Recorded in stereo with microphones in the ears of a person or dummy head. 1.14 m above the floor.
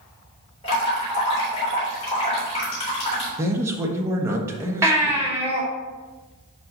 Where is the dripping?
25° left (ahead or behind), 3.5 m.